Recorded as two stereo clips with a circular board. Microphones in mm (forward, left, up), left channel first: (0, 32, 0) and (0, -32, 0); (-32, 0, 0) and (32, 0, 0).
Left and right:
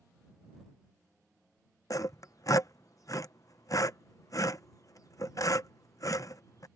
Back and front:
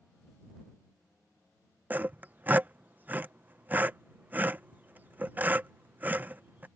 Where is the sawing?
60° left.